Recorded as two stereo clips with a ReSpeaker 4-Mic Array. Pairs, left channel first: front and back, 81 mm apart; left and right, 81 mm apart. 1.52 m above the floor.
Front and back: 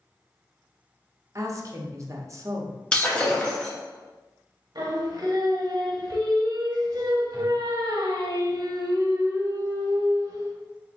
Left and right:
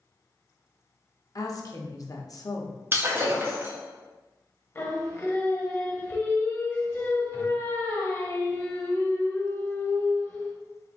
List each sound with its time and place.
1.4 s a woman speaking: 130° left, 0.7 m
2.9 s breaking glass: 65° right, 0.9 m
4.8 s singing: 150° left, 0.8 m